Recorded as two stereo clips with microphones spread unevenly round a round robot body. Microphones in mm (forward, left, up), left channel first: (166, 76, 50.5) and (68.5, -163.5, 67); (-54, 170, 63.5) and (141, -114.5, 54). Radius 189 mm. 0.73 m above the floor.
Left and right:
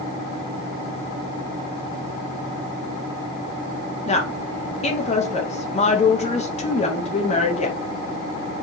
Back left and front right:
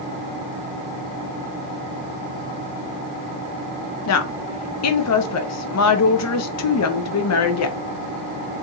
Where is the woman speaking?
115° left, 0.8 m.